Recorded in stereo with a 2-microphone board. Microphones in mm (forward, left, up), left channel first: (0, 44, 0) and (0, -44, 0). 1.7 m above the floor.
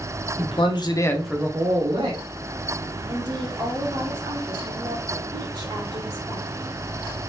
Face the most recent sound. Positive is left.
turn(degrees=-50)  # may be behind; listen again after turning